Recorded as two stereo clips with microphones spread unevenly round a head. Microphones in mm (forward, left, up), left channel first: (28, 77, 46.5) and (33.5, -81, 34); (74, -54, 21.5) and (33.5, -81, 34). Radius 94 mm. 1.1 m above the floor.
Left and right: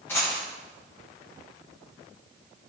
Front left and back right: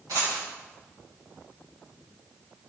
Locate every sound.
0.1 s a dropped coin: 170° left, 5 m